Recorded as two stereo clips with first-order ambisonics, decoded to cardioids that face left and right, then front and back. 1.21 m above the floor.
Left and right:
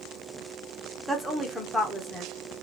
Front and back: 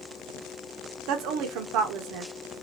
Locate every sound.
1.1 s a woman speaking: 175° left, 0.9 m